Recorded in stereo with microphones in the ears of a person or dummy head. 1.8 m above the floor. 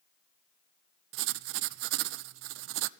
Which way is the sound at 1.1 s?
65° right (ahead or behind).